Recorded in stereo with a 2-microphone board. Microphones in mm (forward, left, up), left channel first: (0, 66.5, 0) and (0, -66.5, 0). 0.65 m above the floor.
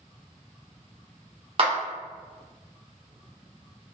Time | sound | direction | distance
1.6 | a clap | 45° right (ahead or behind) | 1.1 m